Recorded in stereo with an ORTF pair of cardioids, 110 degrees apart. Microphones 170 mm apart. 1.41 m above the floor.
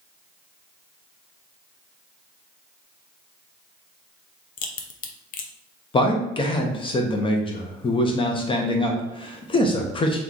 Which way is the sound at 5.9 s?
30° left.